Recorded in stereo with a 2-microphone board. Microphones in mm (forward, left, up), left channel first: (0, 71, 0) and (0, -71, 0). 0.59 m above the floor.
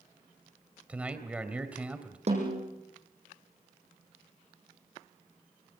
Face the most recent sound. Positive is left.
turn(degrees=-45)  # may be behind; listen again after turning